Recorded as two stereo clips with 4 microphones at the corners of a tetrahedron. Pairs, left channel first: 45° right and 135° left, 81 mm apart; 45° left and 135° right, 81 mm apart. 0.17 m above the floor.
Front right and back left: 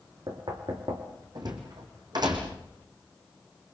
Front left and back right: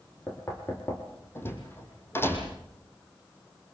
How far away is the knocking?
About 5 m.